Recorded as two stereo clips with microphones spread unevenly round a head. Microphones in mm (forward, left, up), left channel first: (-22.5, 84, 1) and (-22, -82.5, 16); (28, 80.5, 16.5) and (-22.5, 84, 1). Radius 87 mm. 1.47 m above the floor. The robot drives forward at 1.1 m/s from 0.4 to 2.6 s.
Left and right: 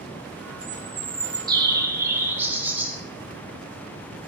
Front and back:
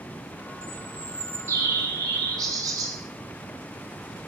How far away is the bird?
About 1.0 m.